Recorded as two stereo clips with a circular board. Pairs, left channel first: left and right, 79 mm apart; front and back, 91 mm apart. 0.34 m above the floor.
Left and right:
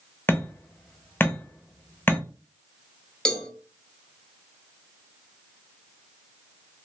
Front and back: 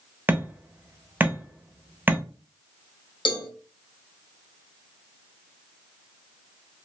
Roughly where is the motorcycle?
No motorcycle in this recording.